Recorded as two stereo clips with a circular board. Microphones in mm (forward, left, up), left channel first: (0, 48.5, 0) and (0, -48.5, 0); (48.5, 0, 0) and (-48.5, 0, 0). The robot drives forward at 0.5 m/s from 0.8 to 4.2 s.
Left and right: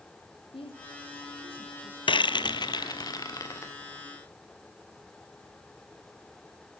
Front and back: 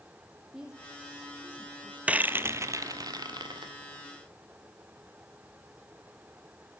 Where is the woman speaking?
95° left, 4.5 m; by 2.7 s 110° left, 4.5 m.